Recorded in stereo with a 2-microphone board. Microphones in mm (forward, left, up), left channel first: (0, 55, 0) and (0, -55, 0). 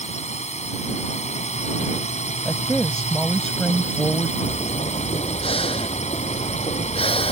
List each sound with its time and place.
0.0 s a drone: 75° left (ahead or behind)
2.5 s a woman speaking: 5° left (ahead or behind)
4.4 s breathing: 55° left (ahead or behind)